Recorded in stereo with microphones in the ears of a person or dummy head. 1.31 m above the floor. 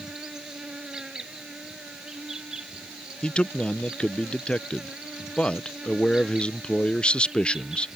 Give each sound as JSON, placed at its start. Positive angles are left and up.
{"t": 0.0, "sound": "an insect", "side_deg": -5}
{"t": 3.2, "sound": "a man speaking", "side_deg": 5}